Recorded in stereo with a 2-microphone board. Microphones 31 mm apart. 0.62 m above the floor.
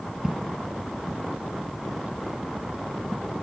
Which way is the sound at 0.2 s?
15° right (ahead or behind).